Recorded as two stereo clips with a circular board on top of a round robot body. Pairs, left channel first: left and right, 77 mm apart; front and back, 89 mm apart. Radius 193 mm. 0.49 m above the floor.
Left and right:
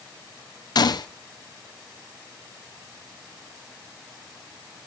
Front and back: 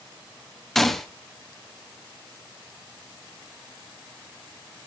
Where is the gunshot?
85° left, 1.5 m.